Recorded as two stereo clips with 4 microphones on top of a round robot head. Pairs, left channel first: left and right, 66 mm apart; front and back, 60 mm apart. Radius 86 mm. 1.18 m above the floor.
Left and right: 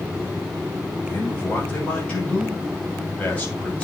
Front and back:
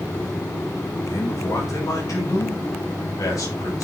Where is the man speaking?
20° left, 7 m.